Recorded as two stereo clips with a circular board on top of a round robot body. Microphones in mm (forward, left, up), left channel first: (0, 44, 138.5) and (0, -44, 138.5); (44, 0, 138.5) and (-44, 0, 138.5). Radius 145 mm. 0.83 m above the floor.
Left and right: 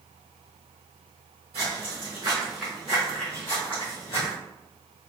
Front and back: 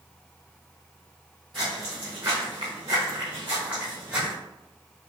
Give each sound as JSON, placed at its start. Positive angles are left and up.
{"t": 1.5, "sound": "footsteps", "azimuth_deg": -95, "distance_m": 1.1}